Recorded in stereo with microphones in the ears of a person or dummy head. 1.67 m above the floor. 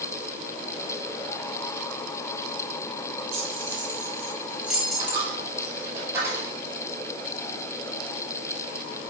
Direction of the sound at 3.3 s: 40° right (ahead or behind).